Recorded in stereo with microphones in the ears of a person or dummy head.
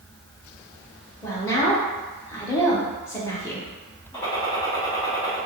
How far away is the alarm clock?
No alarm clock in this recording.